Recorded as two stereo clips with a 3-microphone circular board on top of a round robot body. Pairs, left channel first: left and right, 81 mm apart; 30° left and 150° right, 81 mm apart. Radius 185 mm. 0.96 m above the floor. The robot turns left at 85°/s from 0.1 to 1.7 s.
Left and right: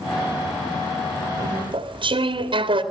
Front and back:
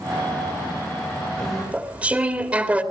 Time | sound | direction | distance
1.4 | chewing | 45° right | 2 m